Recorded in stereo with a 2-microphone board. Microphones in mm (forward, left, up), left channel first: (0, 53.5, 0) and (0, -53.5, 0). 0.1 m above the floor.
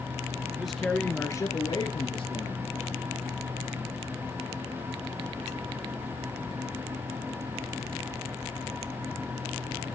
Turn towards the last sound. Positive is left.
turn(degrees=60)  # may be behind; listen again after turning